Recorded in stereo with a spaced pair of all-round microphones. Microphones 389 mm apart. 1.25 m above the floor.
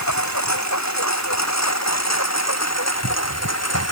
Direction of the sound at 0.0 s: 45° left (ahead or behind).